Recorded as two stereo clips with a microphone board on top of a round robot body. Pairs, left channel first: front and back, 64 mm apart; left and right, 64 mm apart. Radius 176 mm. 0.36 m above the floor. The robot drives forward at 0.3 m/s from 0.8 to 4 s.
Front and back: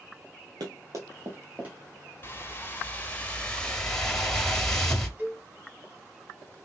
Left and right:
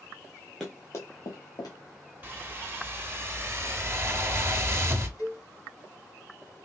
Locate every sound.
0.6 s running footsteps: 175° left, 0.5 m; by 1.8 s 110° left, 1.2 m
2.2 s a whoosh: 40° right, 1.2 m; by 5.1 s 80° right, 1.0 m
5.2 s a cowbell: 125° left, 2.5 m